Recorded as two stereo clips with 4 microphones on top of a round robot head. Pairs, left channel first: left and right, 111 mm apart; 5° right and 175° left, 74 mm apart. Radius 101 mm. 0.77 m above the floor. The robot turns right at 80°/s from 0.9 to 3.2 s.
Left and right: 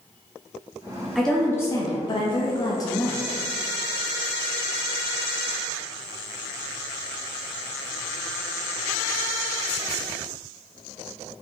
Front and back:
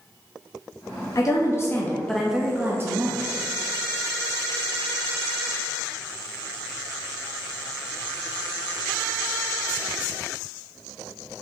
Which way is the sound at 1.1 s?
Straight ahead.